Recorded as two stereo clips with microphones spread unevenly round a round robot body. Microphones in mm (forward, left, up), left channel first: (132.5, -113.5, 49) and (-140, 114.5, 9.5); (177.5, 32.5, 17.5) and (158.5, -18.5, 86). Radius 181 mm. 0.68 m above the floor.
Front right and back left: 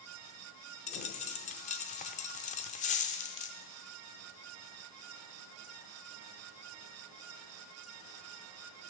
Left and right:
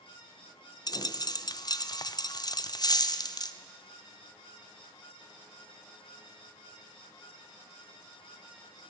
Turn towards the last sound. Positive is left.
turn(degrees=30)